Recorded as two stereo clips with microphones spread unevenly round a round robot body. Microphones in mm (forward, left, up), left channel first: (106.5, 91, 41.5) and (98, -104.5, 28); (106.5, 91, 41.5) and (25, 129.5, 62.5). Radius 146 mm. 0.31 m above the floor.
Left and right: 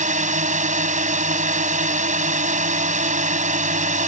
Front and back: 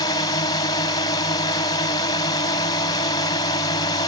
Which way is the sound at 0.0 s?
50° right.